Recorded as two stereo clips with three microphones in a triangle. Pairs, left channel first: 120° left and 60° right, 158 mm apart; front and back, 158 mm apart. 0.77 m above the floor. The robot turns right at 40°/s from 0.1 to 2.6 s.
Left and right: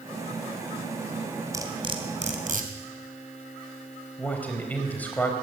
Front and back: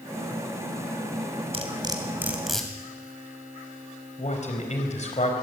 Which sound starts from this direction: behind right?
Cutlery clinking, at 1.5 s.